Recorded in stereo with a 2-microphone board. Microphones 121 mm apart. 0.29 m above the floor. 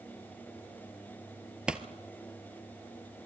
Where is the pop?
5° right (ahead or behind), 1.2 m.